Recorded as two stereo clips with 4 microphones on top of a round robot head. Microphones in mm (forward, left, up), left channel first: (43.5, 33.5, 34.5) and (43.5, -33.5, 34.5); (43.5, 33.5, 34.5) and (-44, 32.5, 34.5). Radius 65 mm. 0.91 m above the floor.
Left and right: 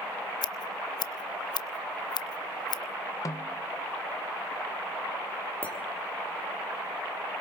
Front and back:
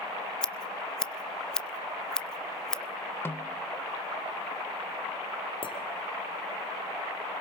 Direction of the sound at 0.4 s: 80° left.